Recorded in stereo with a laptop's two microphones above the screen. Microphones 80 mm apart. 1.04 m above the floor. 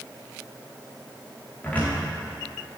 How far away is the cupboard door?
About 1.7 m.